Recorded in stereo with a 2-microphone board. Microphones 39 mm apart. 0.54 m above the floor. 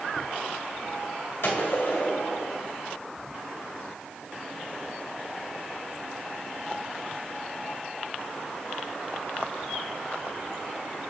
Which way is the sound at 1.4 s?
65° left (ahead or behind).